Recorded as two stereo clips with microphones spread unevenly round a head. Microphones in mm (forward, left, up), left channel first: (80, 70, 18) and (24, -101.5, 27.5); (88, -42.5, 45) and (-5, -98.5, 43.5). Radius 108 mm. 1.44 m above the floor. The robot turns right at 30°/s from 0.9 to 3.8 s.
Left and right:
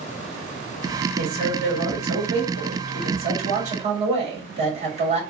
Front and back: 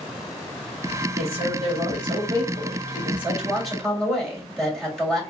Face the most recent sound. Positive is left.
turn(degrees=-55)